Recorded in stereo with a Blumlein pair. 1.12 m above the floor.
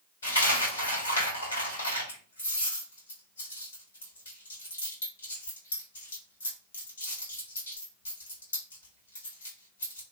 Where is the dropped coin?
70° left, 2.0 m.